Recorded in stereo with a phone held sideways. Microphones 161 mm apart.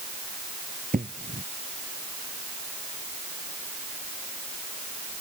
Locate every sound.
0.9 s an explosion: 60° right (ahead or behind)